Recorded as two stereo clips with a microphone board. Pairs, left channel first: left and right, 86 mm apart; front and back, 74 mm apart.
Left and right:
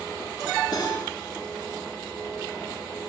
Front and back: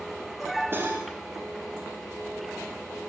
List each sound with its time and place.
0.7 s cutlery clinking: 125° left, 4 m